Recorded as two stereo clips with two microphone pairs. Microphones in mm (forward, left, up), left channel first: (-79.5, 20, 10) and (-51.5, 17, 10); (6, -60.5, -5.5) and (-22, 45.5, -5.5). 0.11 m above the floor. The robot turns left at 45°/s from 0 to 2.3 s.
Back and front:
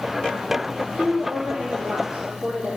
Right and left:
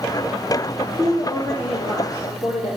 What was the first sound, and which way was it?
A woman speaking, 5° left.